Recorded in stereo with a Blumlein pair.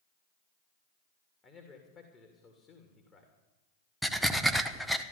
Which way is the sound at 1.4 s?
20° left.